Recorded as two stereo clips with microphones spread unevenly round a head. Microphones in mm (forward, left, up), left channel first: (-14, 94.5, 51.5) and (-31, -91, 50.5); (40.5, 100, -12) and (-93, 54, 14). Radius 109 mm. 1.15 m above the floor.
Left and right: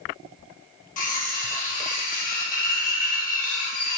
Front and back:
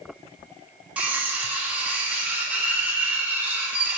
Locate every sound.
1.0 s cutlery clinking: 125° left, 0.8 m